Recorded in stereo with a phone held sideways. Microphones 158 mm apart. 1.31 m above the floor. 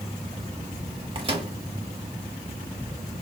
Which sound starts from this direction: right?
A microwave, at 1.1 s.